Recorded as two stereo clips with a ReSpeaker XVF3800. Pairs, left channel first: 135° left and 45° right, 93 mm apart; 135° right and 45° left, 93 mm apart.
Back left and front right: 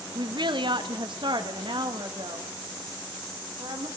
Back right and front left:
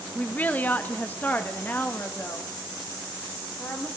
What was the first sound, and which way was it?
A woman speaking, 65° right.